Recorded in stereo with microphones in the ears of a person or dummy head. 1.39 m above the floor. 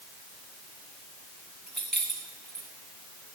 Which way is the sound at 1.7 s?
Centre (ahead or behind).